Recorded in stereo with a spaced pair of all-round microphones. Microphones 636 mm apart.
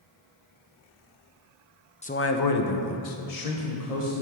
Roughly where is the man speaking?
Centre.